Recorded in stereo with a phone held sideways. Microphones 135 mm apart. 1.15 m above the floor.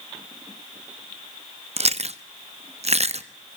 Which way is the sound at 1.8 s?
55° right (ahead or behind).